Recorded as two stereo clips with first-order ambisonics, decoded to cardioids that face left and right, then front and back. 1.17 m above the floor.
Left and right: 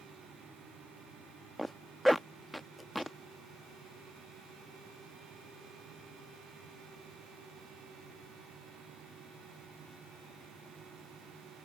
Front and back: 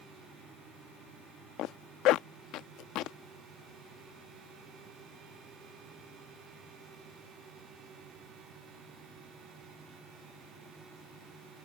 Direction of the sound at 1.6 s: Straight ahead.